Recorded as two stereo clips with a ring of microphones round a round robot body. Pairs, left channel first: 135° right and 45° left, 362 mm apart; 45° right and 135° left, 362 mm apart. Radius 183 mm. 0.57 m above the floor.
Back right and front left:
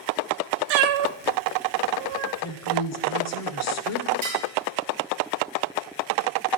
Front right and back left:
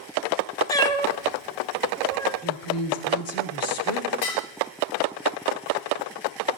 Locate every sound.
0.7 s a cat meowing: 35° left, 1.1 m
2.4 s a woman speaking: 90° right, 1.9 m
4.2 s dishes clattering: 25° right, 8.5 m